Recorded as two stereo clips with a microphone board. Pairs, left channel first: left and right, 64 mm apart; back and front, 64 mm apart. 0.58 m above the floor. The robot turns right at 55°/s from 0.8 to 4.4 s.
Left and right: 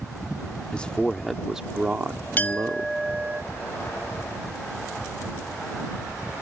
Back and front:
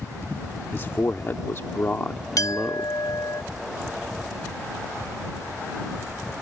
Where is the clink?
150° left; by 3.4 s 150° right.